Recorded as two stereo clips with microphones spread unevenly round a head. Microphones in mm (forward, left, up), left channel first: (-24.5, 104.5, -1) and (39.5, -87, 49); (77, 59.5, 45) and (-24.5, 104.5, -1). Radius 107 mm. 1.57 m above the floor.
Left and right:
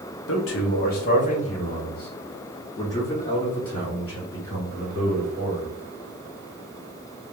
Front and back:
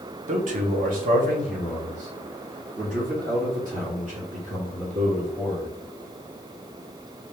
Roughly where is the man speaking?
Behind left.